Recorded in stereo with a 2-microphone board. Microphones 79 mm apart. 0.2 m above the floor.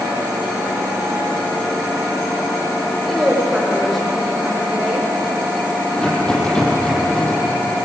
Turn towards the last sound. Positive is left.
turn(degrees=10)  # may be behind; listen again after turning